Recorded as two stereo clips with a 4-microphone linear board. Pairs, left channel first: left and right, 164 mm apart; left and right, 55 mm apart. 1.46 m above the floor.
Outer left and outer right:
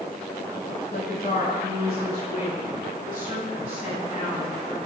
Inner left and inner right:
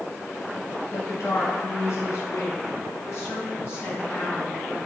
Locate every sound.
0.9 s a woman speaking: 80° left, 3 m; by 4.8 s 50° left (ahead or behind), 4 m